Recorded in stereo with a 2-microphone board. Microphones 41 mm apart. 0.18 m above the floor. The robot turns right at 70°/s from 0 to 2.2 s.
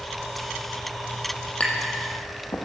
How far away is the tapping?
About 2.5 m.